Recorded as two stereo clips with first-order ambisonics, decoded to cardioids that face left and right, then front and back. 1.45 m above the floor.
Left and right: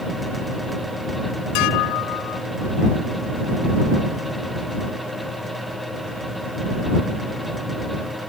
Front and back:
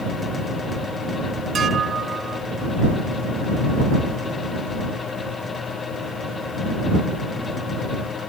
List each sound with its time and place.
1.6 s dishes clattering: 115° left